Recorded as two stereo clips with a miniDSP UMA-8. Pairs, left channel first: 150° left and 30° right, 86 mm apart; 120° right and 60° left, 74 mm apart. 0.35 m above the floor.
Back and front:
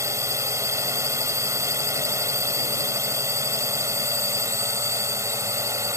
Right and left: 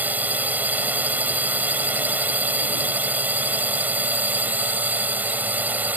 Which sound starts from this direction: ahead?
A drone, at 0.0 s.